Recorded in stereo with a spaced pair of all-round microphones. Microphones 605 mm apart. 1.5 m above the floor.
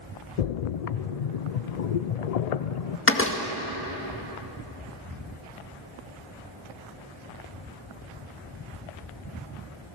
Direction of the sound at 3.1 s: 20° left (ahead or behind).